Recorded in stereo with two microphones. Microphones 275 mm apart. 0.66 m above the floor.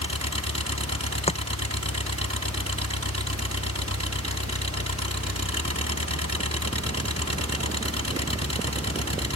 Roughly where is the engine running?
Right.